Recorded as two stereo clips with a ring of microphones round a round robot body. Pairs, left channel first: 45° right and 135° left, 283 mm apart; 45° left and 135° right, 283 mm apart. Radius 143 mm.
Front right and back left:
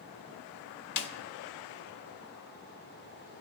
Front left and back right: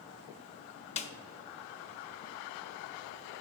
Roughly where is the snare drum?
Ahead right.